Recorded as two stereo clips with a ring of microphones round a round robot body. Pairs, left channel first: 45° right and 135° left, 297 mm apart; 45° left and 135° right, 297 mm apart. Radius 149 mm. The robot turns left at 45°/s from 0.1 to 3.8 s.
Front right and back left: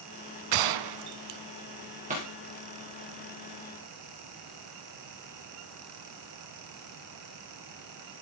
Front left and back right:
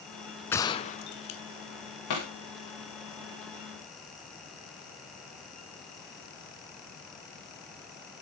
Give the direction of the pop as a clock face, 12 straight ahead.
10 o'clock.